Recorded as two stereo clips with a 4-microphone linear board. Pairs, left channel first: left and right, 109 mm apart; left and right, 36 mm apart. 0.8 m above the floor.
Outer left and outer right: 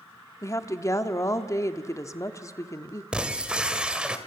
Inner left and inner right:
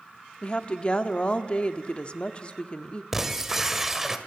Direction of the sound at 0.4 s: 30° left (ahead or behind).